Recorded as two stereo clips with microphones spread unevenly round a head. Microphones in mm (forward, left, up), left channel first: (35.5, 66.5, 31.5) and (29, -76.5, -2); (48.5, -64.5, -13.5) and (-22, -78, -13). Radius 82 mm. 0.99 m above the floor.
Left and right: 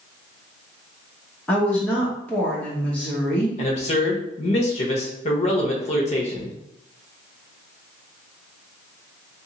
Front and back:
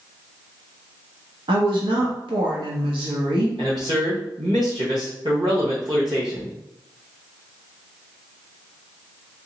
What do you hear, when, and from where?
1.5 s a woman speaking: 175° left, 0.9 m
3.6 s a man speaking: 140° left, 0.9 m